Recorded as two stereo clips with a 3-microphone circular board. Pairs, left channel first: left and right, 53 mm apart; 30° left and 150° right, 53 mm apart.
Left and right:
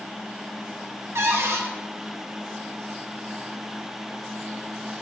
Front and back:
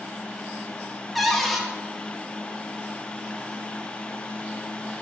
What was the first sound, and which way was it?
A cupboard door, 60° right.